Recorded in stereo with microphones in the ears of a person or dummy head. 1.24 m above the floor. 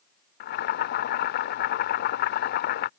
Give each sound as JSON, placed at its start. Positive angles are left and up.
{"t": 0.4, "sound": "boiling", "side_deg": 55}